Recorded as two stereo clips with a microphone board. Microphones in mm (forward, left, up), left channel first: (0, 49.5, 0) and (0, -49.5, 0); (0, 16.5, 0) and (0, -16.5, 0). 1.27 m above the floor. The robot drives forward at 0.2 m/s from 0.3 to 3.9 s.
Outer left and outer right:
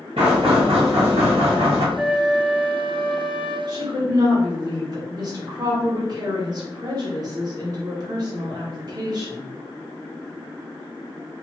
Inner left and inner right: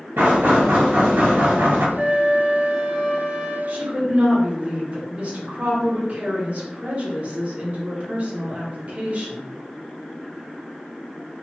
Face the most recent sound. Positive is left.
turn(degrees=-40)  # may be behind; listen again after turning